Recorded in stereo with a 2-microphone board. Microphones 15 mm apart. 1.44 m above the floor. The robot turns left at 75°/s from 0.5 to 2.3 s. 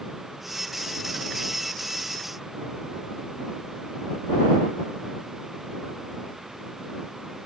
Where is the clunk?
No clunk in this recording.